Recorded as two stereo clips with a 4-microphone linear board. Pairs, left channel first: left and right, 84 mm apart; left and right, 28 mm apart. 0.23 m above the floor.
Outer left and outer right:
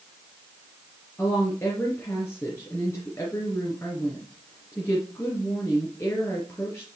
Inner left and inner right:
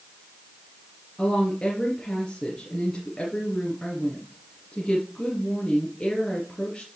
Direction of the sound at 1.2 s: 30° left (ahead or behind).